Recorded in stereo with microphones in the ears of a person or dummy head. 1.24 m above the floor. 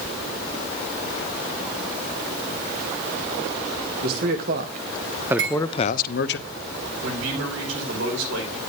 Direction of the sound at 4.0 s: 50° right (ahead or behind).